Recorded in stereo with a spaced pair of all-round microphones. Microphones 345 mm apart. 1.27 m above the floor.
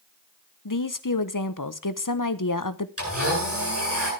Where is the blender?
45° right (ahead or behind), 9 m.